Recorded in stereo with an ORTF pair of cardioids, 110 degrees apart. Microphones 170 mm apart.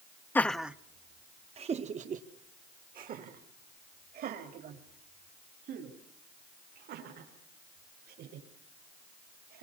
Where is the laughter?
10° left, 0.7 m; by 9.6 s 70° right, 6 m.